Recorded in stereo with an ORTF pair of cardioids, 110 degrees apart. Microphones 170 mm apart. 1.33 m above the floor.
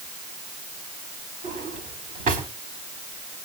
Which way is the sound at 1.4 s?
50° right.